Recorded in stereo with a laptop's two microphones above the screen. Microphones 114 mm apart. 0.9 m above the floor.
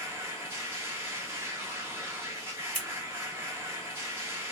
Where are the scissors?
85° left, 1.5 m.